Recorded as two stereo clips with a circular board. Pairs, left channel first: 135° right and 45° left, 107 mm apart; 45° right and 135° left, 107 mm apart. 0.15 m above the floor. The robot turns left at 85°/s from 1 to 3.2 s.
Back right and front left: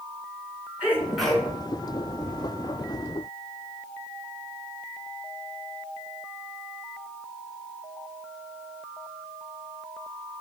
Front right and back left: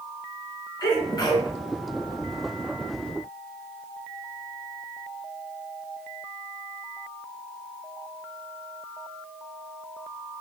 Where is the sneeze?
25° right, 2.0 m; by 1.5 s 70° right, 2.0 m.